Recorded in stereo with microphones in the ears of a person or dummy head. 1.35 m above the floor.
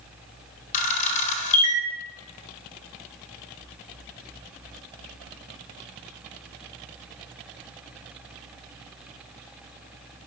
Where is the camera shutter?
40° left (ahead or behind), 1.2 m.